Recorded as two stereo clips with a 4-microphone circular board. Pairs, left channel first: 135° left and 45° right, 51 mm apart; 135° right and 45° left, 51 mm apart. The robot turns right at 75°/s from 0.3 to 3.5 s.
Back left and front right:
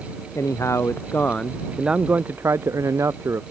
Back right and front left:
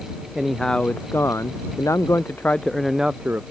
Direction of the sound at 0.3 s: 125° left.